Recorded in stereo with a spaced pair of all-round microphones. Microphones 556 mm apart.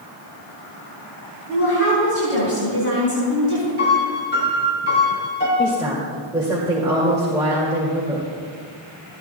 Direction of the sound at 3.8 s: 20° left (ahead or behind).